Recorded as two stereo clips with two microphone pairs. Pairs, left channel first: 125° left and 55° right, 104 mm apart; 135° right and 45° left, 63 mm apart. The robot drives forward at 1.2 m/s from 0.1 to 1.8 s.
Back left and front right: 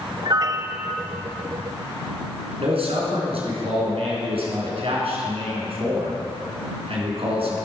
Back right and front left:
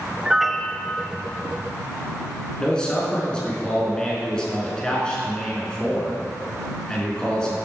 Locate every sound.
0.2 s a piano: 25° right, 0.7 m; by 1.1 s 155° right, 0.7 m
2.6 s a man speaking: 60° right, 3.5 m